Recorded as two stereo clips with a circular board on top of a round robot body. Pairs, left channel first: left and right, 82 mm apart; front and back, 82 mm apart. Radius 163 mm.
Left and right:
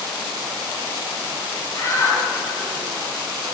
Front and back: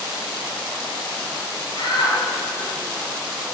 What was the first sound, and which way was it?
A shout, 35° left.